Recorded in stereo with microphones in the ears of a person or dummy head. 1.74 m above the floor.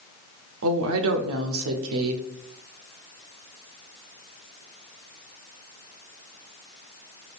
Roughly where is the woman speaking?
Right.